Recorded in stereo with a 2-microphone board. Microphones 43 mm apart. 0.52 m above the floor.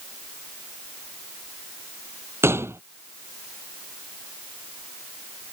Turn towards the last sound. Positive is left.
turn(degrees=-80)